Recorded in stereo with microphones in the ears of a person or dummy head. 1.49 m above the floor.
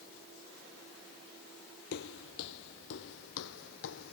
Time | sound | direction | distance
1.9 | footsteps | 60° left (ahead or behind) | ?